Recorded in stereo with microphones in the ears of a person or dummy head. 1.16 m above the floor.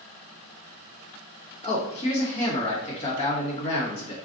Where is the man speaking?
35° left (ahead or behind), 1.4 m.